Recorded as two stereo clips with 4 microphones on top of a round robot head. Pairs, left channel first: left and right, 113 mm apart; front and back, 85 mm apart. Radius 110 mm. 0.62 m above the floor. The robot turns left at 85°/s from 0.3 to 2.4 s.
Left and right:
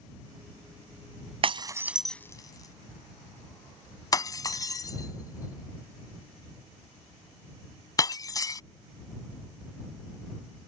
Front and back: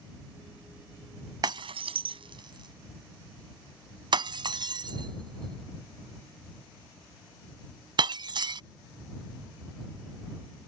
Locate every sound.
1.4 s breaking glass: 130° right; by 8.6 s 150° left